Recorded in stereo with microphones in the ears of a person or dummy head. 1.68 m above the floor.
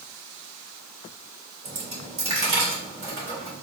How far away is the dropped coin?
About 2 m.